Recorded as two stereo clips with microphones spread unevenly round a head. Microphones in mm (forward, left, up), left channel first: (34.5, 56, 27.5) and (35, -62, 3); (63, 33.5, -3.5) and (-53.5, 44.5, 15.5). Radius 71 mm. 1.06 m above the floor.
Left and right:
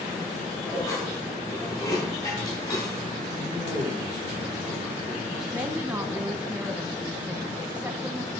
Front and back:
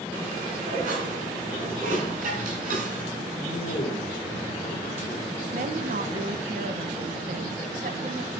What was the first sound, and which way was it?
Dishes clattering, 160° left.